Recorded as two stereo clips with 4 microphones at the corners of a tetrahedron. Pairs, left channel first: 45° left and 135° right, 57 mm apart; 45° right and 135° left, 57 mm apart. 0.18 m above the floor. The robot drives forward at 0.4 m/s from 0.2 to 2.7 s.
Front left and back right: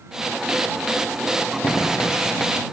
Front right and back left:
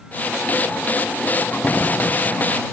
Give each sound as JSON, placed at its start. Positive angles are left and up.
{"t": 1.6, "sound": "a door slam", "azimuth_deg": 15}